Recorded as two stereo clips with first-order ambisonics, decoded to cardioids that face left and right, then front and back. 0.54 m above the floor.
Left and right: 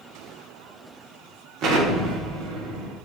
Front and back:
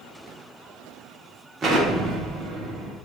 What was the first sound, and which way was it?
An explosion, 120° right.